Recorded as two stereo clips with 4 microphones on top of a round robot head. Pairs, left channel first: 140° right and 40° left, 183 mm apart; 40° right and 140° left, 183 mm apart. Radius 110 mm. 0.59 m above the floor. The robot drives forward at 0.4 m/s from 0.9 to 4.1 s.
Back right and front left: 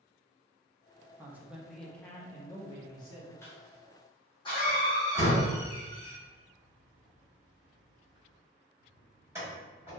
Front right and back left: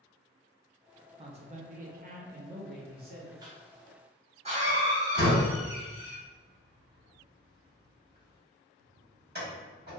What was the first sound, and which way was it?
A man speaking, 105° left.